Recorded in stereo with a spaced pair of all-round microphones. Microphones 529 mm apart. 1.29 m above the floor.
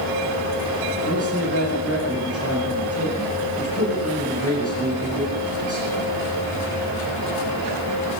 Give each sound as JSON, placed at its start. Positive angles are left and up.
{"t": 1.1, "sound": "a man speaking", "side_deg": 25, "distance_m": 10.0}